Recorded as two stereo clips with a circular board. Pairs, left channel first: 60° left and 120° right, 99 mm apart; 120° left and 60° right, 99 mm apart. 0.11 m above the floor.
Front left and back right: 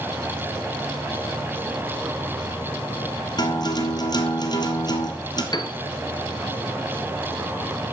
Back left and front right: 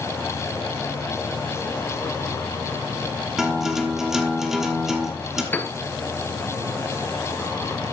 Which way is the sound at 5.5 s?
55° left.